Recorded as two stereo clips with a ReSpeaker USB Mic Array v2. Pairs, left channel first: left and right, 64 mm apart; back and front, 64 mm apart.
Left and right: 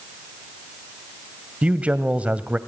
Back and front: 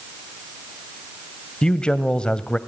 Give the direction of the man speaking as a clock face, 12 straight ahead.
4 o'clock.